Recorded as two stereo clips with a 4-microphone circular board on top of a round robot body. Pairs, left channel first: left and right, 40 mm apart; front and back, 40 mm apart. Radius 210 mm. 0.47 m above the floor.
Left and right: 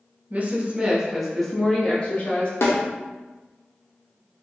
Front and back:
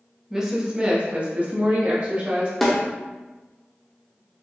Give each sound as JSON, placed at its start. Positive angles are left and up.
{"t": 0.3, "sound": "a woman speaking", "azimuth_deg": -105, "distance_m": 1.3}
{"t": 2.6, "sound": "a snare drum", "azimuth_deg": 85, "distance_m": 0.9}